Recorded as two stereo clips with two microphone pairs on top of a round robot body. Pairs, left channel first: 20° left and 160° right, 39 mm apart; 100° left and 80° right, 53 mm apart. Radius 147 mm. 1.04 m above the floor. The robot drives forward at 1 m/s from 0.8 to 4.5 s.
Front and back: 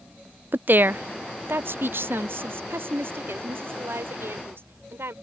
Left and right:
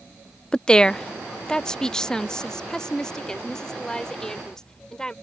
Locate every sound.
0.5 s a woman speaking: 170° left; by 5.1 s straight behind